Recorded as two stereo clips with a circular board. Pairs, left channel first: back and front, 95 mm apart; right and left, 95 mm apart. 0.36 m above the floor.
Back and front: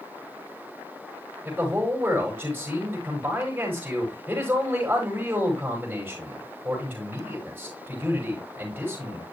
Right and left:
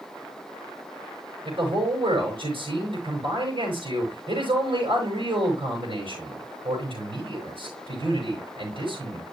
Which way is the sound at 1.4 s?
75° left.